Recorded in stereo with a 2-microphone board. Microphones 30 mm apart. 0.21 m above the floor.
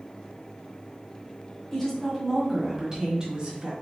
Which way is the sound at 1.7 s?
15° left (ahead or behind).